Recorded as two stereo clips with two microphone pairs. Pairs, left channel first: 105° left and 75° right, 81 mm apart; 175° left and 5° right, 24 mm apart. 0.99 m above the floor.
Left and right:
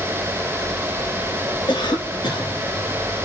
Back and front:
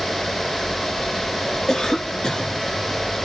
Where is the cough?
115° left, 1.9 m.